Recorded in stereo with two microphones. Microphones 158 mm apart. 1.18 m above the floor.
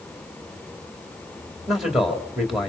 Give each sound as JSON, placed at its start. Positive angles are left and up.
{"t": 1.7, "sound": "a man speaking", "side_deg": 0, "distance_m": 3.5}